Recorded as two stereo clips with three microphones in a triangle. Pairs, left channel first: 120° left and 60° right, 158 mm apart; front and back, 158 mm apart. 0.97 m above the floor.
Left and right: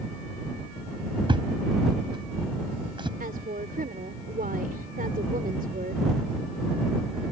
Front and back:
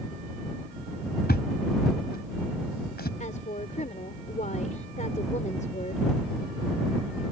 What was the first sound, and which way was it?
A thud, straight ahead.